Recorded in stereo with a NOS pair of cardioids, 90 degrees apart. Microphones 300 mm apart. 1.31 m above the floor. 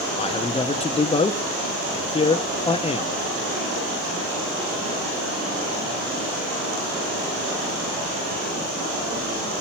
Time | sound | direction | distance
0.2 | a man speaking | 20° left | 0.7 m